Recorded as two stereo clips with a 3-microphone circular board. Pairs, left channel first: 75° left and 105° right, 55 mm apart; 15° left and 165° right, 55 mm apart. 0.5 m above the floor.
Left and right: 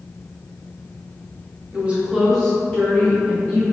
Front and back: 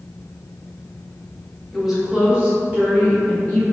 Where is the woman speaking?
80° right, 0.9 m; by 3.6 s 135° left, 2 m.